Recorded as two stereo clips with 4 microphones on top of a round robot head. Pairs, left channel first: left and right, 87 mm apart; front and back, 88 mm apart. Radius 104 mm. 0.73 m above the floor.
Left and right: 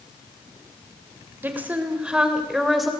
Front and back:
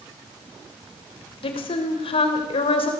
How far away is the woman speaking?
About 3.5 m.